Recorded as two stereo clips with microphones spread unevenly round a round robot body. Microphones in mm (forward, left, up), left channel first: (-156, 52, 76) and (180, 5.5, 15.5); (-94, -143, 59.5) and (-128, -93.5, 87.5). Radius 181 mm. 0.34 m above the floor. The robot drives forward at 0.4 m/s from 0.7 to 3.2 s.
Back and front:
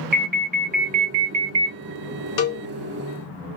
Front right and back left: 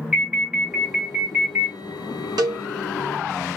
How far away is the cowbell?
About 1.0 m.